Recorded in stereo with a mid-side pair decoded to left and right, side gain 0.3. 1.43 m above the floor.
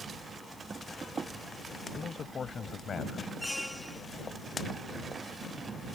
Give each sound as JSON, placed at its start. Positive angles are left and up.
{"t": 1.9, "sound": "a man speaking", "azimuth_deg": 60}
{"t": 3.4, "sound": "a squeak", "azimuth_deg": 15}